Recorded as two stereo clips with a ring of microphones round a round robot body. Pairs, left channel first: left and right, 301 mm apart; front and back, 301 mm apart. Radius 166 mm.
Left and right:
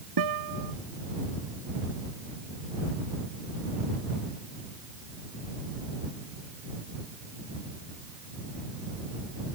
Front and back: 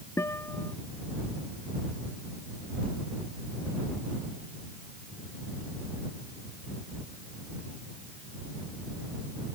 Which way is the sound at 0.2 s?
85° right.